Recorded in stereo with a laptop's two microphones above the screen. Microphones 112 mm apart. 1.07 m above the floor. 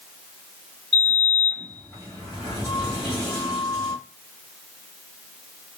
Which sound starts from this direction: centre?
A sliding door, at 0.9 s.